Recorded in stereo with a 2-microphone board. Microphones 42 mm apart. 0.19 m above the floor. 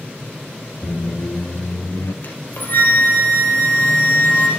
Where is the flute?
50° left (ahead or behind), 2.5 m.